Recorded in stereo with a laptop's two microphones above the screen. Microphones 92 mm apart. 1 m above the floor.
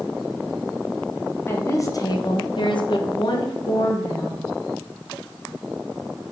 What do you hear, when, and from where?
1.5 s a woman speaking: 25° left (ahead or behind), 0.8 m; by 4.4 s 40° left (ahead or behind), 1.4 m